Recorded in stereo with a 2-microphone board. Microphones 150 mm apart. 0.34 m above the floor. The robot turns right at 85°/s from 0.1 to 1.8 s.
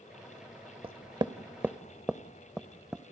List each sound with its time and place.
0.8 s knocking: 40° right (ahead or behind), 0.7 m; by 3.0 s 5° right (ahead or behind), 0.7 m